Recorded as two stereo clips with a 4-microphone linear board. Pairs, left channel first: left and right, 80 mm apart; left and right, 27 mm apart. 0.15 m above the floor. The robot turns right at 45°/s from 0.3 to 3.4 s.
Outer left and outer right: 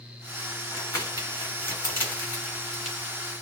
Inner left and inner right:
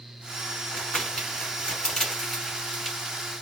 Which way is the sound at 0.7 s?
40° left (ahead or behind).